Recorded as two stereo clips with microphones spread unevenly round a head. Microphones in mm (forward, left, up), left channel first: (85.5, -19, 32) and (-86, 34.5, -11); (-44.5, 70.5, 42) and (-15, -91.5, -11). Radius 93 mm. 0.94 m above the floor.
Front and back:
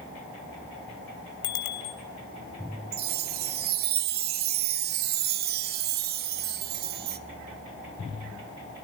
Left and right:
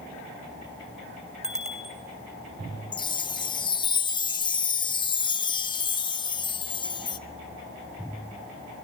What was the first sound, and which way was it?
A bicycle bell, 5° left.